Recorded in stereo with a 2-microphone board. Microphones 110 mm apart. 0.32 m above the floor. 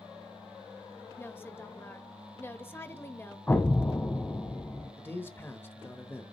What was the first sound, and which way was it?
A woman speaking, 20° left (ahead or behind).